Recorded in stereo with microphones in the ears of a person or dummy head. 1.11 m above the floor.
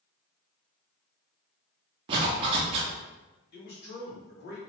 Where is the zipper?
30° right (ahead or behind), 0.7 m.